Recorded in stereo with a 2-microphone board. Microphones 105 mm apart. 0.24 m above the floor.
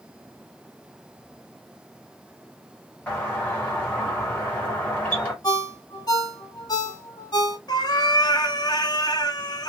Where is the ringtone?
40° left (ahead or behind), 1.2 m.